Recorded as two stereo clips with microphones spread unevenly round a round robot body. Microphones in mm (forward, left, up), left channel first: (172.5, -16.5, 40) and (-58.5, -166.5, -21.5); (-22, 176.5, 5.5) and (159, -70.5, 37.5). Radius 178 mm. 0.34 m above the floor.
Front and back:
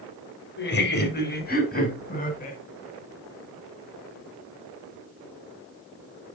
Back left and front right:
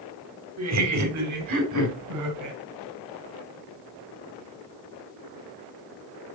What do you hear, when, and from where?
0.6 s laughter: 20° right, 1.9 m; by 2.6 s 30° right, 3.5 m